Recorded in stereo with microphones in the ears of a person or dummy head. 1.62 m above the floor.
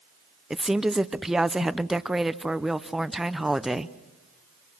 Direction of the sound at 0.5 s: 5° right (ahead or behind).